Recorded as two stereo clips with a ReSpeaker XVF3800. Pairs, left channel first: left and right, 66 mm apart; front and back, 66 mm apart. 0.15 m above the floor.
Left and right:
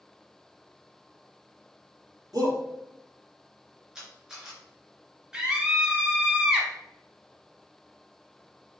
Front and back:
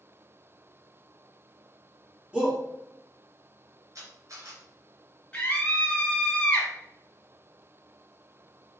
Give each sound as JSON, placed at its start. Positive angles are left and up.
{"t": 2.3, "sound": "a shout", "azimuth_deg": -105, "distance_m": 3.0}
{"t": 4.0, "sound": "a camera shutter", "azimuth_deg": -165, "distance_m": 2.5}
{"t": 5.3, "sound": "a scream", "azimuth_deg": -30, "distance_m": 1.3}